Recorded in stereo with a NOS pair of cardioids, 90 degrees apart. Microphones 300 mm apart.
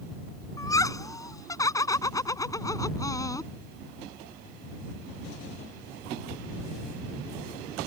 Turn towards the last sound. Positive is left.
turn(degrees=10)